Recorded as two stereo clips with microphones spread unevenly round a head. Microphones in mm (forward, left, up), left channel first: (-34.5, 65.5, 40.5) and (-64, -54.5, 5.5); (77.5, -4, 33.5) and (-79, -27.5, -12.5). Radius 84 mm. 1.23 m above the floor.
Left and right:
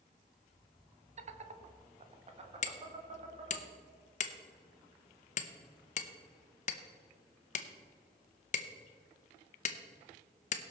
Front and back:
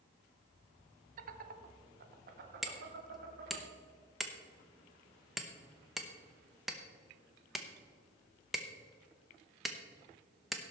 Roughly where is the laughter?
Behind right.